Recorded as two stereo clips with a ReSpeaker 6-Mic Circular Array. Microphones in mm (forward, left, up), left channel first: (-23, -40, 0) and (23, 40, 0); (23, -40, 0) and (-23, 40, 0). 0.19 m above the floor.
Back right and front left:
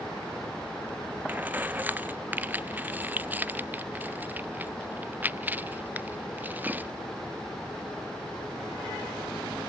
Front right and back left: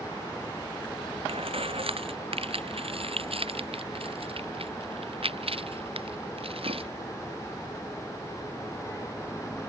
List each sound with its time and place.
1.3 s keys jangling: 130° left